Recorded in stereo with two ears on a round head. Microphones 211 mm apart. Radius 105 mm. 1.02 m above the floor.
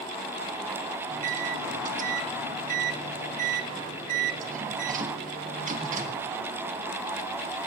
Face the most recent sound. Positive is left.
turn(degrees=-35)  # may be behind; listen again after turning